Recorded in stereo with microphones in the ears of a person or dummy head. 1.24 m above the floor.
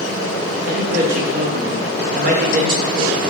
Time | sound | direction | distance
0.6 | a man speaking | 45° right (ahead or behind) | 0.6 m